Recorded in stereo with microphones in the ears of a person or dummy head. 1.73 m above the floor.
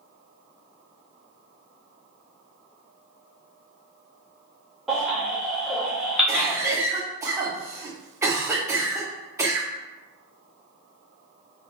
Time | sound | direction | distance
4.9 | a baby crying | centre (ahead or behind) | 1.3 m
6.3 | a cough | 20° right (ahead or behind) | 0.9 m